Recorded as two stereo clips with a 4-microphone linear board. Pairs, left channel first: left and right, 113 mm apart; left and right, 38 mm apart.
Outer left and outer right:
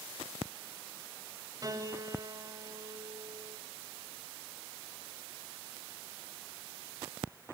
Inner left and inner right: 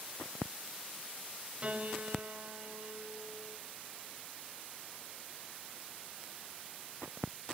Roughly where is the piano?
Right.